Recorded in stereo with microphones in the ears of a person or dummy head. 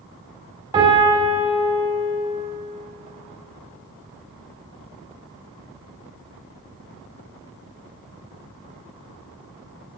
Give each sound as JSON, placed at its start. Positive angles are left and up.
{"t": 0.7, "sound": "a piano", "side_deg": -25, "distance_m": 2.0}